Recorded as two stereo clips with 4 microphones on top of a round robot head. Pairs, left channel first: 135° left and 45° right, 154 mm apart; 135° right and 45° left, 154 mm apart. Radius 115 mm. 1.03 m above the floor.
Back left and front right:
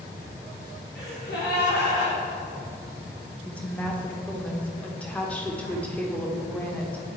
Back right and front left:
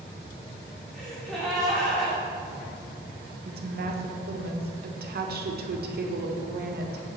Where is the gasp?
140° left, 1.9 m.